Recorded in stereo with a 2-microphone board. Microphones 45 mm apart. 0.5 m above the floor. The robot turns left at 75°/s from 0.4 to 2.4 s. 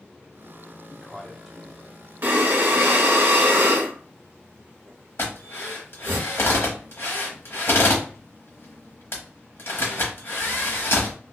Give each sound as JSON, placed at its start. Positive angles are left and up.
{"t": 0.9, "sound": "a man speaking", "side_deg": 15, "distance_m": 0.8}
{"t": 2.2, "sound": "breathing", "side_deg": -45, "distance_m": 0.8}
{"t": 5.2, "sound": "a drill", "side_deg": 60, "distance_m": 1.0}